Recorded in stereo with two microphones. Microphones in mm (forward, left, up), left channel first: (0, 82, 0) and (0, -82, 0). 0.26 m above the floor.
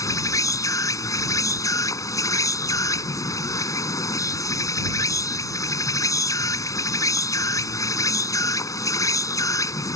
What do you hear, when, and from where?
0.0 s an insect: 20° left (ahead or behind)